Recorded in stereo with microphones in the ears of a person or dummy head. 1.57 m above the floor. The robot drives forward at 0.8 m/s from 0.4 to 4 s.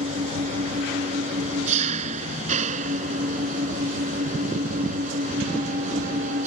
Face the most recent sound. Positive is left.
turn(degrees=-45)  # may be behind; listen again after turning